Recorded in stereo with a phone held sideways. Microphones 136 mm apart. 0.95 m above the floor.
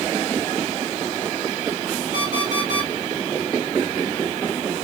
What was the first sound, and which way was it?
An alarm clock, 65° right (ahead or behind).